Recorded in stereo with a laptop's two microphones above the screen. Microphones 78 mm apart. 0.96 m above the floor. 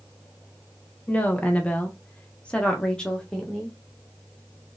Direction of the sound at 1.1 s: 20° left (ahead or behind).